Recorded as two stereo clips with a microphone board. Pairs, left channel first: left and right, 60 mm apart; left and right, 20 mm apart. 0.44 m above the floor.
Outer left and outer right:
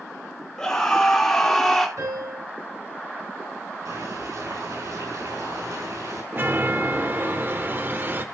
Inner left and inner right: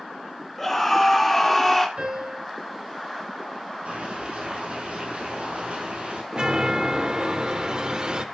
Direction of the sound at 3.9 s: 80° right.